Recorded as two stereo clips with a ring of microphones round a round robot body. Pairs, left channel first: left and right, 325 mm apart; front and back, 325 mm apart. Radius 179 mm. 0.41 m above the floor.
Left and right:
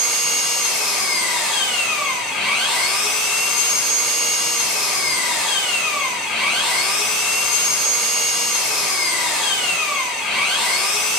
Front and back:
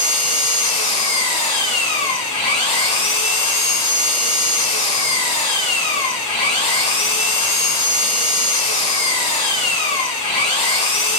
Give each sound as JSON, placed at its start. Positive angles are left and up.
{"t": 0.0, "sound": "an engine running", "azimuth_deg": -5, "distance_m": 3.0}